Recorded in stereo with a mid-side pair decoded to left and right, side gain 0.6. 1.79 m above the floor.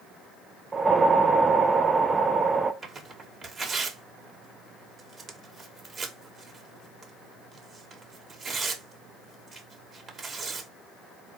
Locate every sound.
0.7 s a whoosh: 25° right, 0.5 m
2.8 s tearing paper: 30° right, 1.3 m